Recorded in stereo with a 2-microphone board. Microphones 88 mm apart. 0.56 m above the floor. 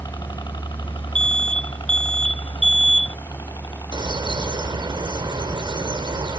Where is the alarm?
75° right (ahead or behind).